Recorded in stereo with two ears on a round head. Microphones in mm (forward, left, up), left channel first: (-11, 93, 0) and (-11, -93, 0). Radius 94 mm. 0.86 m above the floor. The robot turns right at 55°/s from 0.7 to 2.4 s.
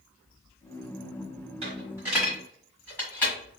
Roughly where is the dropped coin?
Right.